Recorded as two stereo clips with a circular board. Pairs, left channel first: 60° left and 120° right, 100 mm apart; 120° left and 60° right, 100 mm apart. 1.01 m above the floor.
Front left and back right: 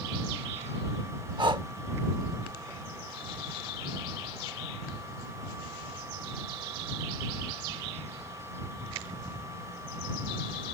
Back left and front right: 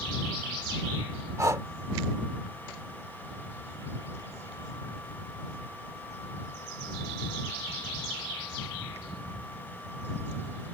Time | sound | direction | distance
1.4 | breathing | 110° right | ?